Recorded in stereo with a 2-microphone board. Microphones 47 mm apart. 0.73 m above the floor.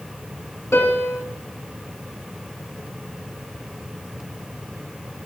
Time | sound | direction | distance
0.7 | a piano | 75° left (ahead or behind) | 1.7 m